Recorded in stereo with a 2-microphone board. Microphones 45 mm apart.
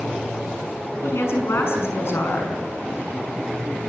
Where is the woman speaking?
65° left (ahead or behind), 6 m.